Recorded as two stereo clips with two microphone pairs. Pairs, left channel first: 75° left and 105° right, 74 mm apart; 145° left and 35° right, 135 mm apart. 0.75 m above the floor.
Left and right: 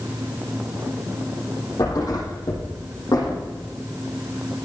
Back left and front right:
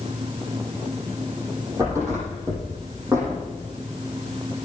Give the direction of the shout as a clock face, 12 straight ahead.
No shout in this recording.